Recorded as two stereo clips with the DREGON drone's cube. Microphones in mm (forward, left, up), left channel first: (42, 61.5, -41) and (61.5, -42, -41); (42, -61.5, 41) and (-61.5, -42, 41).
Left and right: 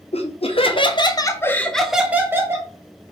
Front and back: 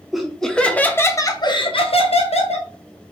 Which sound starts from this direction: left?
Laughter, at 0.1 s.